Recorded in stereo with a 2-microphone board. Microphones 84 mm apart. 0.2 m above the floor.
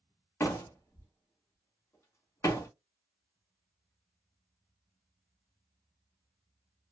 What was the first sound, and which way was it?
A door slam, 35° left (ahead or behind).